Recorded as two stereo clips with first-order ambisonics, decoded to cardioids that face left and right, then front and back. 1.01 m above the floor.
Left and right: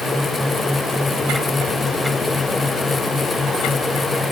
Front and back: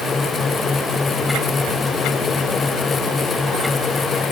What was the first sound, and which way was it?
Only background noise.